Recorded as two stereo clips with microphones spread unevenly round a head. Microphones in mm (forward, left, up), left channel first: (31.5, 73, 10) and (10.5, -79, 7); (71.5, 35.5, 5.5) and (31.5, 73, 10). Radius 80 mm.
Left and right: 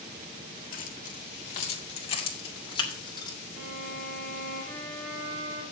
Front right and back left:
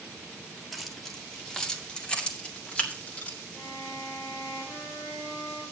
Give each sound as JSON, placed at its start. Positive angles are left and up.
{"t": 0.7, "sound": "keys jangling", "azimuth_deg": 50, "distance_m": 1.8}
{"t": 3.5, "sound": "a violin", "azimuth_deg": -120, "distance_m": 2.5}